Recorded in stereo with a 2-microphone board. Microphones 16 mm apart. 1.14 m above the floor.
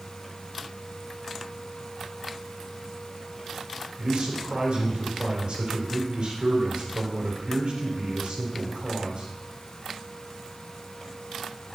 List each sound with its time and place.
4.0 s a man speaking: 75° right (ahead or behind), 4 m